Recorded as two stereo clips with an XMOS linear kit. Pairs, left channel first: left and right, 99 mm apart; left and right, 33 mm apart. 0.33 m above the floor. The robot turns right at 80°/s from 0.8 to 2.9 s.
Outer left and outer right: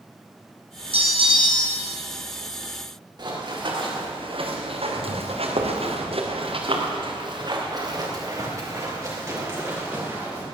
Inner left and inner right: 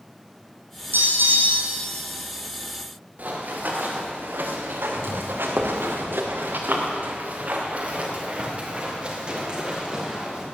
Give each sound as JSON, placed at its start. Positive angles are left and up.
{"t": 0.9, "sound": "a bell", "azimuth_deg": -90, "distance_m": 3.0}
{"t": 3.2, "sound": "running footsteps", "side_deg": -45, "distance_m": 4.5}